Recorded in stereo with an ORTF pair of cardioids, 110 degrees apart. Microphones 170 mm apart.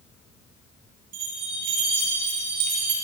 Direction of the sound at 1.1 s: 60° right.